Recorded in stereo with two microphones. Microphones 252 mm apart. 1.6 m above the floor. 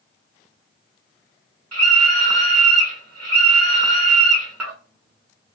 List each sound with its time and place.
1.7 s a scream: 85° right, 0.6 m